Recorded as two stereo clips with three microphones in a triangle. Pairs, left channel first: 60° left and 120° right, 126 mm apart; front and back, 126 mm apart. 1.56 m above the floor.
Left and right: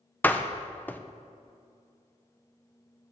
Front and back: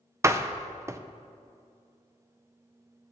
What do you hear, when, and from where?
0.2 s a door slam: 125° left, 0.6 m